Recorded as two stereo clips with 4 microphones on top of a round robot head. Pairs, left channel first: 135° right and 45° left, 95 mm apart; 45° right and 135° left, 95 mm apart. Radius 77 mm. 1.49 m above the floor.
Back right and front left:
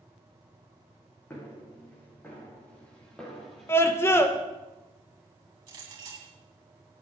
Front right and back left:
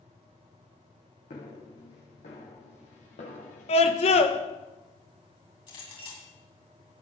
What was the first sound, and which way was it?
Footsteps, 70° right.